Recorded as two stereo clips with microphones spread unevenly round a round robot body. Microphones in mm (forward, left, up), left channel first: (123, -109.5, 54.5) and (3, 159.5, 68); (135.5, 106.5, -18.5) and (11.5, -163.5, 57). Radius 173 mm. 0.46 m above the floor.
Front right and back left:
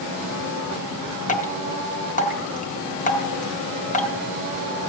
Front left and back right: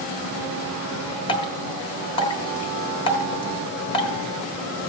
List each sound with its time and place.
1.3 s dripping: 5° right, 1.3 m